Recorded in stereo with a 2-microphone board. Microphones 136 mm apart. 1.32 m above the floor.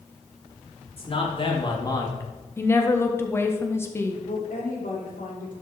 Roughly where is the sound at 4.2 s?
Left.